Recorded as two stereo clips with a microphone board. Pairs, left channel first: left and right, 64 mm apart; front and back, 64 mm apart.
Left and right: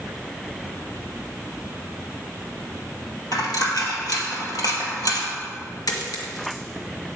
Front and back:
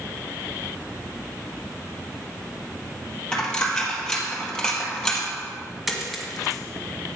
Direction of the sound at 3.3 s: 80° left.